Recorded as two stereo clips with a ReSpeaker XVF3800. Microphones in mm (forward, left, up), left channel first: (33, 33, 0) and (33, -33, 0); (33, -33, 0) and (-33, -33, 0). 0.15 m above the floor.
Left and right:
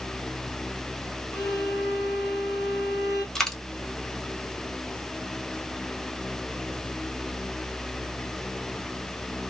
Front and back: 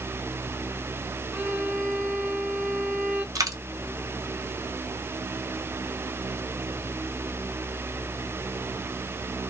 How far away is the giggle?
No giggle in this recording.